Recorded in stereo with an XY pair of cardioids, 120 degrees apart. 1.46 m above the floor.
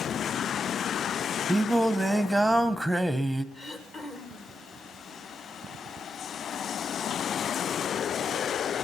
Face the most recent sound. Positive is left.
turn(degrees=45)